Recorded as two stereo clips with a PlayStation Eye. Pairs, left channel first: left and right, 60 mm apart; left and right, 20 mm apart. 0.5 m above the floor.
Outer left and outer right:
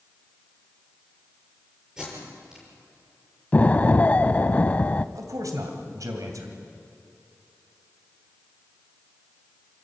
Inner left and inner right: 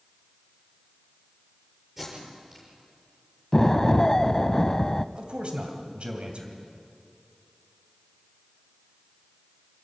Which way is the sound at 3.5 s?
25° left (ahead or behind).